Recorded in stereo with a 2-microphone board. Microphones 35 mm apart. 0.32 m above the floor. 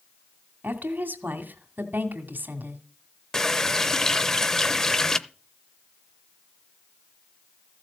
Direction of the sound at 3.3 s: 15° left (ahead or behind).